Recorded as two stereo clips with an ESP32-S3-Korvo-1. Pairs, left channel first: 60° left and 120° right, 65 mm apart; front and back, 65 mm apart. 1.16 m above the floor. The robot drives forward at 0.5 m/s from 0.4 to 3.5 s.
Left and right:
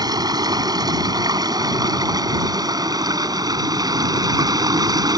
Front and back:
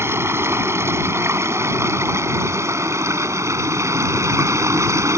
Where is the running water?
130° right; by 5.2 s 135° right.